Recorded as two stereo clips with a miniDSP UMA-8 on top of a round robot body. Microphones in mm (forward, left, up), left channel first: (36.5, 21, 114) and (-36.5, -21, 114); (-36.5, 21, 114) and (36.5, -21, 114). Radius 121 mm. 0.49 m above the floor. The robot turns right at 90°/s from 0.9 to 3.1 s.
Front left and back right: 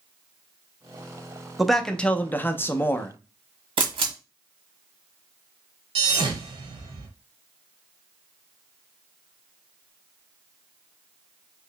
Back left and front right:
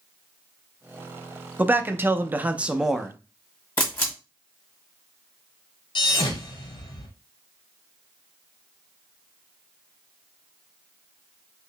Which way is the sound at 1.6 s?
70° right.